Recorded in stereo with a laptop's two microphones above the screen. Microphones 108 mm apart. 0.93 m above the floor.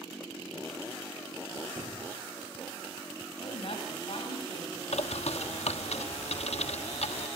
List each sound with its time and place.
1.8 s a squeak: 55° right (ahead or behind), 4 m
3.4 s a woman speaking: 65° left (ahead or behind), 5 m
4.9 s a bird: 85° left, 1.1 m